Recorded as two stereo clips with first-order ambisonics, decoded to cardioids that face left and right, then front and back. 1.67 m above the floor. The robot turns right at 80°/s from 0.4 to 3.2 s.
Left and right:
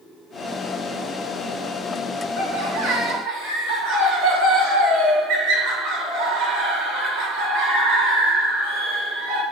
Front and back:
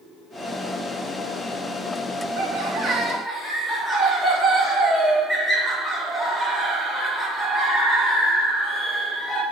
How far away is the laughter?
About 2 m.